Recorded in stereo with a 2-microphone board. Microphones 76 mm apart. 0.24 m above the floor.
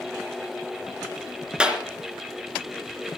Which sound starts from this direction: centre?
A clap, at 1.6 s.